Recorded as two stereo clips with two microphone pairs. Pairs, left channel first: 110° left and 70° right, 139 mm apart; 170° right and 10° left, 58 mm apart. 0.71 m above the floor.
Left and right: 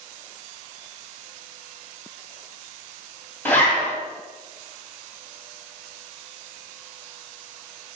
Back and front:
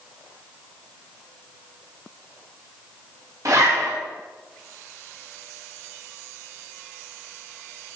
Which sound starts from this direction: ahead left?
A zipper, at 3.5 s.